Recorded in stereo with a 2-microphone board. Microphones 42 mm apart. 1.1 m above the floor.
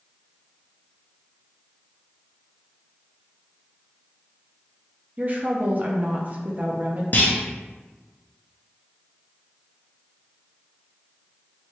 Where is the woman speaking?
40° right (ahead or behind), 0.5 m.